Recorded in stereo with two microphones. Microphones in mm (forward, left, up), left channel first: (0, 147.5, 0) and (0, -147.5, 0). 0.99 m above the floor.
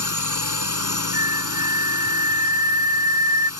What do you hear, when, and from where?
0.0 s a drone: 80° right
1.1 s a flute: 15° right (ahead or behind)